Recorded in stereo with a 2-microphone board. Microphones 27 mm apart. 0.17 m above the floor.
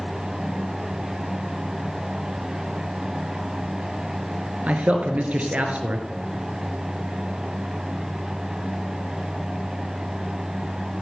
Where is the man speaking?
65° right (ahead or behind), 2.5 m.